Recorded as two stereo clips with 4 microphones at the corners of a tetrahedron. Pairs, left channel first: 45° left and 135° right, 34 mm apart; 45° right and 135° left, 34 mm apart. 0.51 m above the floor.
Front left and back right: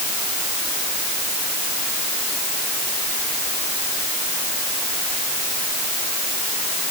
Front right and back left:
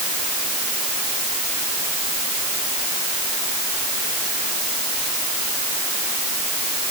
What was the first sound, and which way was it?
Only background noise.